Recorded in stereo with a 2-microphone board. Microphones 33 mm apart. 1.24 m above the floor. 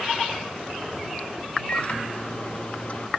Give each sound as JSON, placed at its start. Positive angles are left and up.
{"t": 1.7, "sound": "a microwave", "side_deg": 45}